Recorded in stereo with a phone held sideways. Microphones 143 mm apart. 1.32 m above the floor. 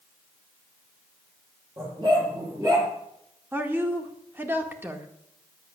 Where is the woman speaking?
15° right (ahead or behind), 1.8 m.